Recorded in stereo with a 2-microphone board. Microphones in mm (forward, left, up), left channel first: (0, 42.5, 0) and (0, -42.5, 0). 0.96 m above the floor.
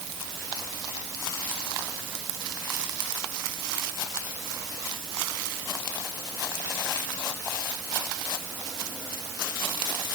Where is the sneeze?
No sneeze in this recording.